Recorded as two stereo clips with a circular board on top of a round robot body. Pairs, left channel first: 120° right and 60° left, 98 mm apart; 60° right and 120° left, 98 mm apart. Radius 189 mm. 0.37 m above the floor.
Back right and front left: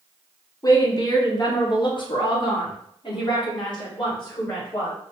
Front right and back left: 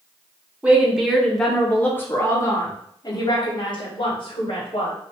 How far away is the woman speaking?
About 1.5 m.